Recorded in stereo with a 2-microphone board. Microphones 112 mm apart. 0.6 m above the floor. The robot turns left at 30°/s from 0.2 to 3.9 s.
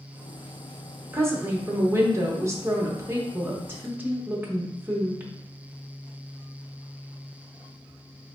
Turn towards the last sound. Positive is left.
turn(degrees=-20)  # may be behind; listen again after turning